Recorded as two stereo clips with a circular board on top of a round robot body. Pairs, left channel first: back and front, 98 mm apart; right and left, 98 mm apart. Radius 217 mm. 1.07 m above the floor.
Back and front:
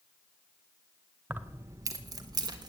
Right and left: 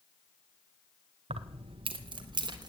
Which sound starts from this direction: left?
Keys jangling, at 1.3 s.